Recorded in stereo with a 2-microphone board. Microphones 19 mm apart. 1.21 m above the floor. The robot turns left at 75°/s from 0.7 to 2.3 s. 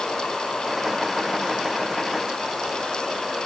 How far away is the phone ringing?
I don't hear a phone ringing.